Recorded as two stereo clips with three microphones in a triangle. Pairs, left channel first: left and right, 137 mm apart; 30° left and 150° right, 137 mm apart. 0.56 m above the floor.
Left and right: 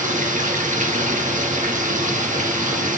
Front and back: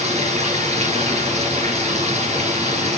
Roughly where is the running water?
Right.